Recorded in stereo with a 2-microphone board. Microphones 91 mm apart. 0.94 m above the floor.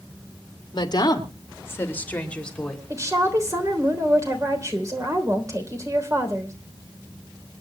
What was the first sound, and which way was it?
A woman speaking, 55° left (ahead or behind).